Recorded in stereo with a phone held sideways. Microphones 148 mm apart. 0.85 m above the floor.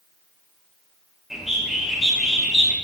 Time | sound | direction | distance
1.3 | a bird | centre (ahead or behind) | 0.8 m